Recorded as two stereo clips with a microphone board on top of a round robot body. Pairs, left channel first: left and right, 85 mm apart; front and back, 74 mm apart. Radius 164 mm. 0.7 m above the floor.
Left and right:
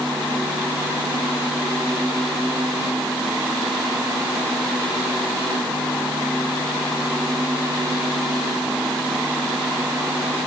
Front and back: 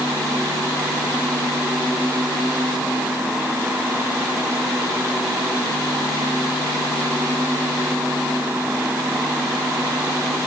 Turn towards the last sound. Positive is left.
No sound to turn to.